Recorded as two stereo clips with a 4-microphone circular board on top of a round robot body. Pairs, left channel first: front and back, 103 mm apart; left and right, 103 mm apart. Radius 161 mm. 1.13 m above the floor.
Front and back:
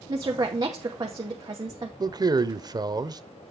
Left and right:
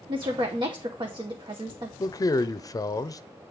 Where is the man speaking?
140° left, 0.7 m.